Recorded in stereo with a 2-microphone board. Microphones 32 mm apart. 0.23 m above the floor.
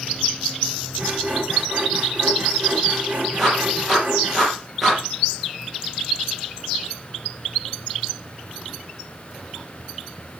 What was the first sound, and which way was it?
Sawing, 35° right (ahead or behind).